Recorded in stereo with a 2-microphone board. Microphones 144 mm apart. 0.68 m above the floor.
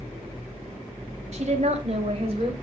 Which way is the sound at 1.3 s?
50° right (ahead or behind).